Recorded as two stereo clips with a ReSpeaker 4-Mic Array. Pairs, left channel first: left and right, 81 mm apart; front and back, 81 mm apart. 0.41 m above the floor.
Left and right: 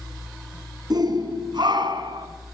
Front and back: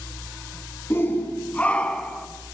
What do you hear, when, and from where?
0.9 s a shout: 60° right, 4 m; by 2.3 s 85° right, 3.5 m